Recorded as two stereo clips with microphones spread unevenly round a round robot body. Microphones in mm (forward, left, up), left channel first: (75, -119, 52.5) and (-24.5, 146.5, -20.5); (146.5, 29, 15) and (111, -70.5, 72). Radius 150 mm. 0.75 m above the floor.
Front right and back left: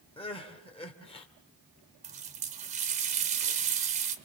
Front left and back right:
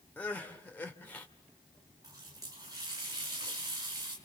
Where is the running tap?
175° left, 1.6 m.